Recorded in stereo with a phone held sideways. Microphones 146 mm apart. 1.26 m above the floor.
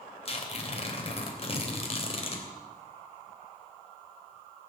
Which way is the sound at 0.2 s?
40° left (ahead or behind).